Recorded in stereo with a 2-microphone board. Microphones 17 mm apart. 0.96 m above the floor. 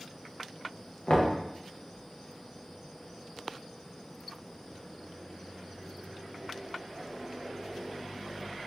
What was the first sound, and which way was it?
Knocking, 55° left (ahead or behind).